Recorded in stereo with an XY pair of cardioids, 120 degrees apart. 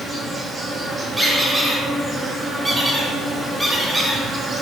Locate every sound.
0.0 s an insect: 30° right, 0.8 m
1.2 s a squeak: 15° right, 1.8 m